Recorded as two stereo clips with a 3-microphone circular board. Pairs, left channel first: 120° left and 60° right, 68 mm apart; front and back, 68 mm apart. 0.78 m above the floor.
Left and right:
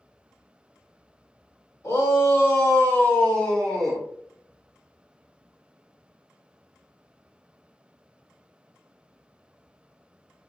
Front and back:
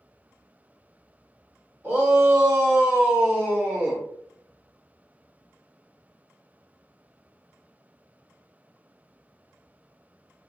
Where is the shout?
125° left, 1.5 m; by 4.0 s 150° right, 1.0 m.